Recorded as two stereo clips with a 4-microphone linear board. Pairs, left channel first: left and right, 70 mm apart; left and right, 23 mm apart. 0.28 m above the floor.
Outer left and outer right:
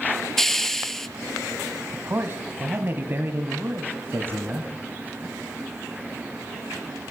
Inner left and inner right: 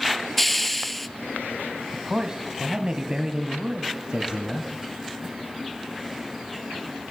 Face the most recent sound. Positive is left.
turn(degrees=-35)  # may be behind; listen again after turning